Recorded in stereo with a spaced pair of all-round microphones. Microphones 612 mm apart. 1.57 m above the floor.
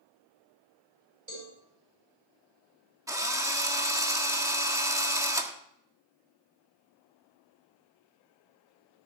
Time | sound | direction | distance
1.3 | a cowbell | 60° right (ahead or behind) | 7.5 m
3.1 | a drill | 5° right (ahead or behind) | 1.4 m